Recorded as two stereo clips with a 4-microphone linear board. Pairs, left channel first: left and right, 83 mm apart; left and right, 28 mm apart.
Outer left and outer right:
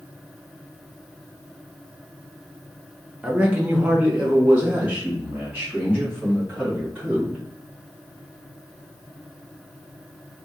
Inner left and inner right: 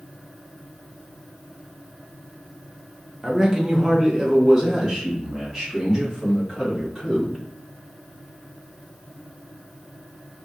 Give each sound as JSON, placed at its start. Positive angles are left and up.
{"t": 3.2, "sound": "a man speaking", "side_deg": -15, "distance_m": 0.9}